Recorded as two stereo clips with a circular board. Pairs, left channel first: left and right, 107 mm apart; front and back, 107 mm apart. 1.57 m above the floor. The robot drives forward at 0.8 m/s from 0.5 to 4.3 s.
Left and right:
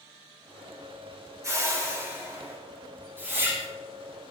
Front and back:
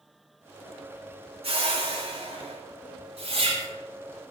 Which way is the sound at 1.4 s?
150° right.